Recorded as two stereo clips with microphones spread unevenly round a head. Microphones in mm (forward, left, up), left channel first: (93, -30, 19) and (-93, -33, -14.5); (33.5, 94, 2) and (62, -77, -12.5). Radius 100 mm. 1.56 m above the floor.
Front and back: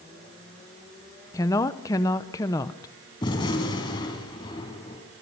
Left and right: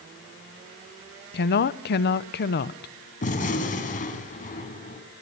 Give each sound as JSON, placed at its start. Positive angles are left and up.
{"t": 1.3, "sound": "a woman speaking", "azimuth_deg": 75, "distance_m": 0.9}
{"t": 3.2, "sound": "a gunshot", "azimuth_deg": 65, "distance_m": 3.5}